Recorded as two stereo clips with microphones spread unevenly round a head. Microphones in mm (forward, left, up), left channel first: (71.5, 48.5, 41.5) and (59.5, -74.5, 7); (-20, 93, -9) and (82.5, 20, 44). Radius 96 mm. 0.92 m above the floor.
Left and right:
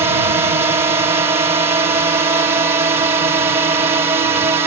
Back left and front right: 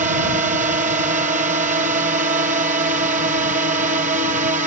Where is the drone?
65° right.